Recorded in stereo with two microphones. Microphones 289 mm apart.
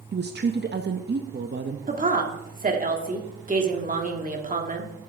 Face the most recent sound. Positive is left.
turn(degrees=-30)  # may be behind; listen again after turning